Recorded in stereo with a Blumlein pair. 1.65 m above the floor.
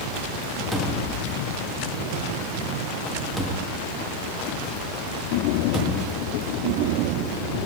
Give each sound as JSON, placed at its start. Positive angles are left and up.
{"t": 0.7, "sound": "a cupboard door", "azimuth_deg": 0, "distance_m": 0.6}